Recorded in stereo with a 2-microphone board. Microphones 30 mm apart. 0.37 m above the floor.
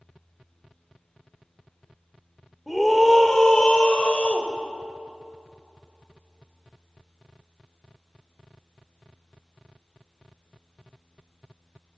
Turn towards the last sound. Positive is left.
turn(degrees=45)  # may be behind; listen again after turning